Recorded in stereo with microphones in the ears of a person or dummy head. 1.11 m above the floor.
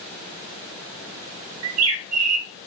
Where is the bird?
75° right (ahead or behind), 0.8 m.